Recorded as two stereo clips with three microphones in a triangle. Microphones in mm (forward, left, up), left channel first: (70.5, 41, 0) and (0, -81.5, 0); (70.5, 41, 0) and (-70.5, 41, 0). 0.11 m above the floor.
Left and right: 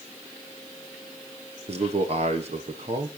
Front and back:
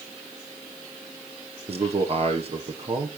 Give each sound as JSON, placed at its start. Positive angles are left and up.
{"t": 1.7, "sound": "a man speaking", "azimuth_deg": -150, "distance_m": 2.5}